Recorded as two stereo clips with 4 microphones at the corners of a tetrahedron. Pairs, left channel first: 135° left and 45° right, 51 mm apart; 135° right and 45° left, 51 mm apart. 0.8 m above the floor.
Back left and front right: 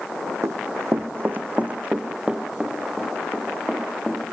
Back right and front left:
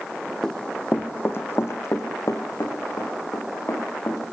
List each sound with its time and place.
0.4 s running footsteps: 55° right, 1.9 m; by 4.3 s 135° right, 6 m